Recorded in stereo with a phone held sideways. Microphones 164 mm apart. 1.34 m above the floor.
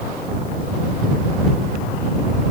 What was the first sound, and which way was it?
Only background noise.